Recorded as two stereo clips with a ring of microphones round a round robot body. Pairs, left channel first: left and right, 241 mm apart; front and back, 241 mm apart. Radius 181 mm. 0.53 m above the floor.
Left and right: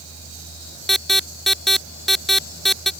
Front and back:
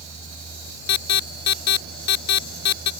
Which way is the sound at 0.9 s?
Straight ahead.